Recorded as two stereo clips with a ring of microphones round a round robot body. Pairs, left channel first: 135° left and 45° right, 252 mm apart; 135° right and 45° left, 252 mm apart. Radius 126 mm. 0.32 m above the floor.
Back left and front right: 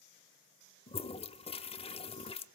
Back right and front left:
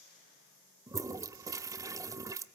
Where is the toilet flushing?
105° left, 0.7 m.